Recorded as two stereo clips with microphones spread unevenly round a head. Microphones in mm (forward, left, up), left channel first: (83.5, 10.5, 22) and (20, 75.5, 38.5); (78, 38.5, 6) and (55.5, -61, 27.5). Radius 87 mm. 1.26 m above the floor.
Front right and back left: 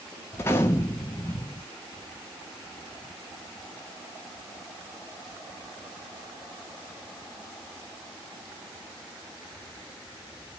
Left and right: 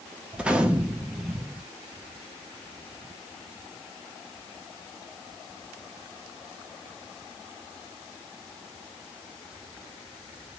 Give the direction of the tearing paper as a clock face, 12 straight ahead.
No tearing paper in this recording.